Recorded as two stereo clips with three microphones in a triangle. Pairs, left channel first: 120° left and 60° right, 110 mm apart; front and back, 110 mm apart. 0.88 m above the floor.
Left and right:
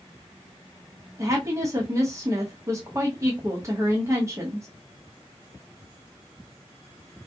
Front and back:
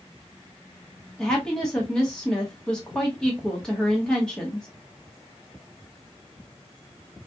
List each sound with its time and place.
1.2 s a woman speaking: 75° right, 0.9 m